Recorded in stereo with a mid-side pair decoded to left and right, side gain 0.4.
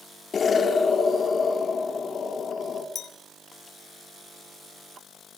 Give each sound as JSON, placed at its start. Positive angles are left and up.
{"t": 0.3, "sound": "an explosion", "azimuth_deg": 45, "distance_m": 4.0}
{"t": 3.0, "sound": "a clink", "azimuth_deg": 65, "distance_m": 3.5}